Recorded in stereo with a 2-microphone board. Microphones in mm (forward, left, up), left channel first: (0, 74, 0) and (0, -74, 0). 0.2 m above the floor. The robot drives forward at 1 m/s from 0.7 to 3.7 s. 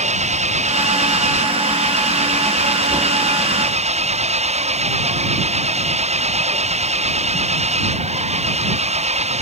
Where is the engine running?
50° right (ahead or behind); by 9.4 s 45° right (ahead or behind).